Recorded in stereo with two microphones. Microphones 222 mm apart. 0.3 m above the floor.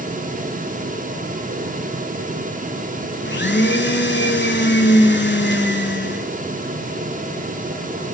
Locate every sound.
3.2 s a blender: 55° left (ahead or behind), 0.8 m